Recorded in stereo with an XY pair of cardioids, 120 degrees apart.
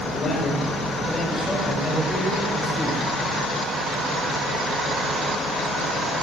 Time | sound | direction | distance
0.1 | a man speaking | 35° left | 7 m